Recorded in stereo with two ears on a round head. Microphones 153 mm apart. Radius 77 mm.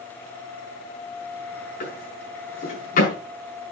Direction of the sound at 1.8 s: 50° left (ahead or behind).